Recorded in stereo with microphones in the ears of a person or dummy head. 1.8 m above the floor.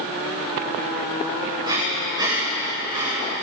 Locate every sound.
1.6 s breathing: 25° right (ahead or behind), 9.5 m